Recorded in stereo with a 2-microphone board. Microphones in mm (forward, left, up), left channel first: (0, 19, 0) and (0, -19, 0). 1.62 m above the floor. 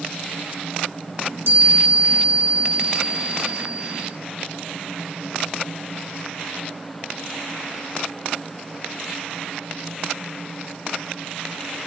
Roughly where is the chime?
Right.